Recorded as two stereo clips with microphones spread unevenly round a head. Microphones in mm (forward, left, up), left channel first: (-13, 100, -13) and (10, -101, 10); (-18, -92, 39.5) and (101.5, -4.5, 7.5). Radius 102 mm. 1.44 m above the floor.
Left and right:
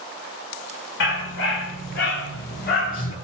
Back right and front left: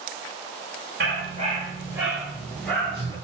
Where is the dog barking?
80° left, 1.6 m; by 3.1 s 150° left, 2.5 m.